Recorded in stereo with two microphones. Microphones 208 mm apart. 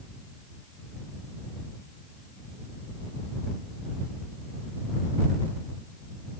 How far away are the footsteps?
No footsteps in this recording.